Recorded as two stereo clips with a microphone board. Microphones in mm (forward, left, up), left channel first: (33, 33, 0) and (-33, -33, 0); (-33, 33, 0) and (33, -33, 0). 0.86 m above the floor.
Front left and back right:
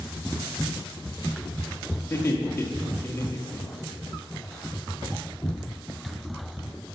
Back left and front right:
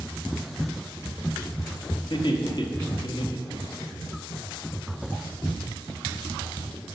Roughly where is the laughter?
Left.